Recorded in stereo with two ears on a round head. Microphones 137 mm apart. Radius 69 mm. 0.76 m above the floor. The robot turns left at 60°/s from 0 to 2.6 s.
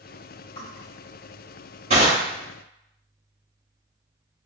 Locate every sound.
0.6 s crushing: 30° left (ahead or behind), 1.8 m; by 2.2 s 50° right (ahead or behind), 1.8 m